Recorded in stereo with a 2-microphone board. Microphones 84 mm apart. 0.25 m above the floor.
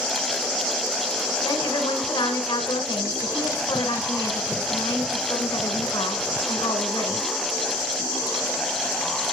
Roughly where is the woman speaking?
Left.